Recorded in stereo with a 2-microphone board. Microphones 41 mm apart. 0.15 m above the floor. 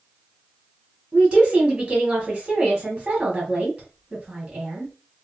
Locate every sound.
1.1 s a woman speaking: 30° right (ahead or behind), 1.7 m